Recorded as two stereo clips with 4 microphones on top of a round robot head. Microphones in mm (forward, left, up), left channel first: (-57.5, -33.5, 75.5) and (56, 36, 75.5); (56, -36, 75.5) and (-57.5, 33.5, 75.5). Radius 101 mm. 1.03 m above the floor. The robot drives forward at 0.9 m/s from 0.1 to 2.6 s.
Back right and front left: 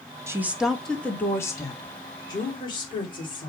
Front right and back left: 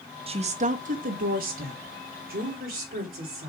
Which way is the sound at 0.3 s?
100° left.